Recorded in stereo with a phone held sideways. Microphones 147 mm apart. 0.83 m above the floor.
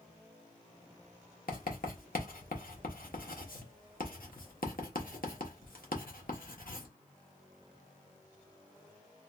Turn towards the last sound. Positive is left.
turn(degrees=80)